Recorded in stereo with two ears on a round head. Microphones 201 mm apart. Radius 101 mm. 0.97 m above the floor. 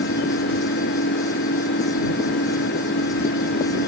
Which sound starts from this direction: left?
An engine running, at 0.0 s.